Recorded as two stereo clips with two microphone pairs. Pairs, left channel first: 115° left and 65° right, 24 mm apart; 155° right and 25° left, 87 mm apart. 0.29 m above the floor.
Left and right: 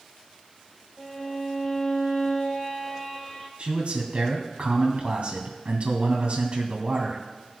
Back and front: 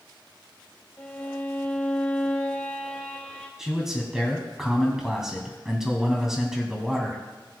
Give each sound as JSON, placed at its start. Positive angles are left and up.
{"t": 1.0, "sound": "a violin", "azimuth_deg": 155, "distance_m": 1.6}
{"t": 3.6, "sound": "a man speaking", "azimuth_deg": -60, "distance_m": 2.5}